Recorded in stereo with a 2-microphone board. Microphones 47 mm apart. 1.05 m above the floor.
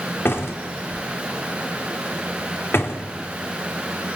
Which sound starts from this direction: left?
A door slam, at 0.2 s.